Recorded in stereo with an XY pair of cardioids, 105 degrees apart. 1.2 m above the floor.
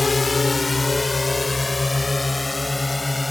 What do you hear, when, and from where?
0.0 s a drone: 25° left; by 3.3 s 15° left